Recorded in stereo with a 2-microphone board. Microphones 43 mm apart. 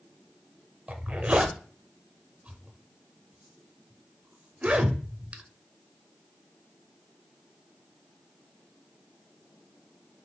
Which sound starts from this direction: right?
A zipper, at 0.9 s.